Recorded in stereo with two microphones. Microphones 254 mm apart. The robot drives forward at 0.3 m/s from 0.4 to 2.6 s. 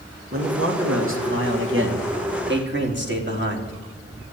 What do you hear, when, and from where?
0.3 s a man speaking: 55° right (ahead or behind), 2.5 m; by 3.7 s 45° right (ahead or behind), 3 m